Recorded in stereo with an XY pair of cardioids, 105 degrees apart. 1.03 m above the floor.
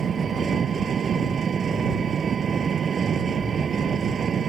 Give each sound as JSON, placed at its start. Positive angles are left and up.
{"t": 0.0, "sound": "an engine running", "azimuth_deg": -50}